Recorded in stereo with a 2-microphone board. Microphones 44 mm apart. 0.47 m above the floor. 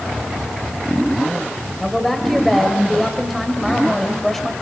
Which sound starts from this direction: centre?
A woman speaking, at 1.8 s.